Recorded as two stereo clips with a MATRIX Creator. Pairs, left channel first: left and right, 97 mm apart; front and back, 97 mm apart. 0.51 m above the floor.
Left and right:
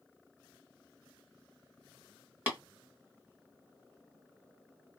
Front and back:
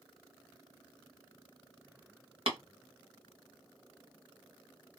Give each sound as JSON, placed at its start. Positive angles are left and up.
{"t": 2.5, "sound": "tapping", "azimuth_deg": -160, "distance_m": 1.5}